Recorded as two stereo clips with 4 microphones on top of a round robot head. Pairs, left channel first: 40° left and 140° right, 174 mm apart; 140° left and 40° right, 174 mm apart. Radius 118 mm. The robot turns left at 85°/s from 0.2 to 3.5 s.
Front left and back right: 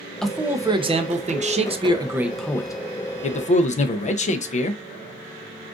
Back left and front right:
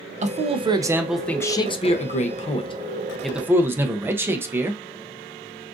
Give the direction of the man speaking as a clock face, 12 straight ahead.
2 o'clock.